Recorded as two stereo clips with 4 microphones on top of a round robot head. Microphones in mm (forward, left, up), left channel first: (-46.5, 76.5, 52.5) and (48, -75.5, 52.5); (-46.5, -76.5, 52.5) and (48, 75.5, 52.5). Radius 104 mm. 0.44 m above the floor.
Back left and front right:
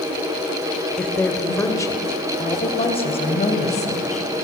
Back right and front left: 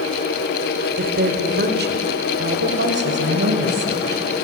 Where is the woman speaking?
35° left, 1.9 m; by 4.3 s 75° left, 3.5 m.